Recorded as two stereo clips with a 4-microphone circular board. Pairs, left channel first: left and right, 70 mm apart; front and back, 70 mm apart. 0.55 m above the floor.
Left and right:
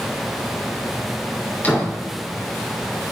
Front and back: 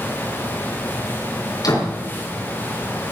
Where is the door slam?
25° left, 4.5 m.